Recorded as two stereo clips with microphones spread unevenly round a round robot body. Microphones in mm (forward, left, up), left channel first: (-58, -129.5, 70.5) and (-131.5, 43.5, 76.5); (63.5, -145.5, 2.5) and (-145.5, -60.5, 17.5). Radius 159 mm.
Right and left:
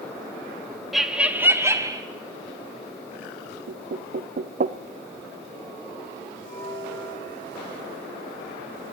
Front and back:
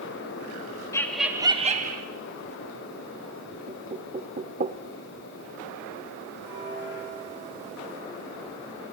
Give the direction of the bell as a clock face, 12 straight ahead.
1 o'clock.